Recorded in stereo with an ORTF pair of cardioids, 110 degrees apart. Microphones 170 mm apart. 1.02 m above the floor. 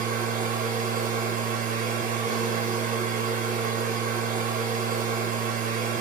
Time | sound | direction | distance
0.0 | a machine running | 50° right | 0.8 m